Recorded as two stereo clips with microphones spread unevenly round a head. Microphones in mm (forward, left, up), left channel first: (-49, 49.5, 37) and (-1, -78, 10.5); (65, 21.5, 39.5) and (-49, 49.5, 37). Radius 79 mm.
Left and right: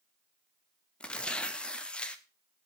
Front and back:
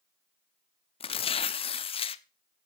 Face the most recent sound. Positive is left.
turn(degrees=30)